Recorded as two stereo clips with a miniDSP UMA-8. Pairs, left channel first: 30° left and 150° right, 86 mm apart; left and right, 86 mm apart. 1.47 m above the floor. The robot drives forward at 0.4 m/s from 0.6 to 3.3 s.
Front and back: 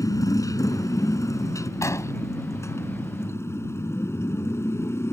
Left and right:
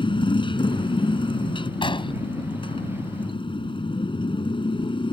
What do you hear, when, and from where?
0.0 s a motorcycle: 80° left; by 5.1 s 90° left
1.8 s an explosion: 85° left